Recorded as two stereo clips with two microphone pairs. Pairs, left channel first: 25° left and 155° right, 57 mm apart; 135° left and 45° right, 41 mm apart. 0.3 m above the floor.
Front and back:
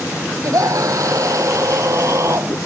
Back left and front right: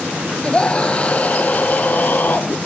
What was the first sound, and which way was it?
A scream, 155° right.